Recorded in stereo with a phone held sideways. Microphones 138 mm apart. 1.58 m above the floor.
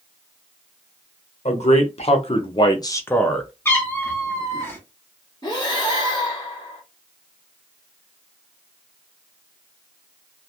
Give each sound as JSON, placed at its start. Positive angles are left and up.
{"t": 1.4, "sound": "a man speaking", "side_deg": 55, "distance_m": 1.1}
{"t": 3.6, "sound": "a cat meowing", "side_deg": 20, "distance_m": 1.2}
{"t": 5.4, "sound": "breathing", "side_deg": 30, "distance_m": 1.3}